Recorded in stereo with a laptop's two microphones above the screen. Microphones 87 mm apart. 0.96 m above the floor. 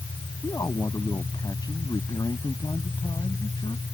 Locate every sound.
0.4 s a man speaking: 45° left (ahead or behind); by 3.8 s 60° left (ahead or behind)